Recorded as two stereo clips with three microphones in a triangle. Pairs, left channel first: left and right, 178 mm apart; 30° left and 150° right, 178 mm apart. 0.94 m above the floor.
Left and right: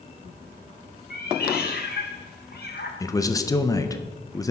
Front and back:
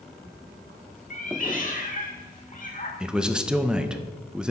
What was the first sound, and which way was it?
A cat meowing, 65° left.